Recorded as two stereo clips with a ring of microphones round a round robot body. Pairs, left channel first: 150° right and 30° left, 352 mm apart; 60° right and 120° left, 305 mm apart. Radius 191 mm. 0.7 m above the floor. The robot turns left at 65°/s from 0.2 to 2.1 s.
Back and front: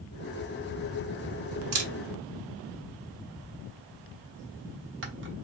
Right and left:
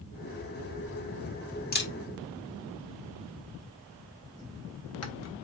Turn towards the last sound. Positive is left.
turn(degrees=-25)